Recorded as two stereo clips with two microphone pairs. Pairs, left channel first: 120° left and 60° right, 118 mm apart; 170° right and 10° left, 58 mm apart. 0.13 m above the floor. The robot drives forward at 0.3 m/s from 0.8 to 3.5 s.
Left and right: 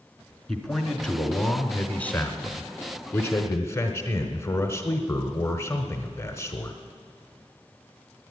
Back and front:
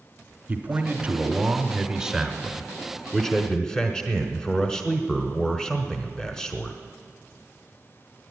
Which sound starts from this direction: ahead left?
A man speaking, at 0.5 s.